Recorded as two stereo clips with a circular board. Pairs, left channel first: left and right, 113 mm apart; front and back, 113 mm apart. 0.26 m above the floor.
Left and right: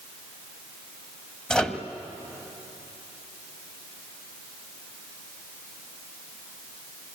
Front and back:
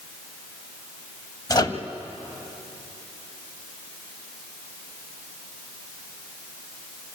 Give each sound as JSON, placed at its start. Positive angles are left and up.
{"t": 1.5, "sound": "a microwave", "azimuth_deg": 10, "distance_m": 1.2}